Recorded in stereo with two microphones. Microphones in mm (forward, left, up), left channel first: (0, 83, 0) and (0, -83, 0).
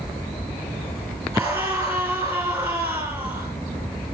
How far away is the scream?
About 7.5 m.